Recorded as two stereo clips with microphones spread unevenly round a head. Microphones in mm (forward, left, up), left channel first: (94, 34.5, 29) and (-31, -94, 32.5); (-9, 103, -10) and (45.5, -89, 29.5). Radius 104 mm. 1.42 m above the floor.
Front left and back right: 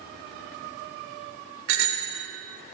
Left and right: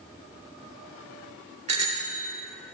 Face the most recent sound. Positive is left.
turn(degrees=-135)